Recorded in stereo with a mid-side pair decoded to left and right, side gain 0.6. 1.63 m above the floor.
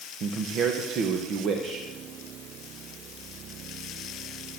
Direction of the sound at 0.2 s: 55° right.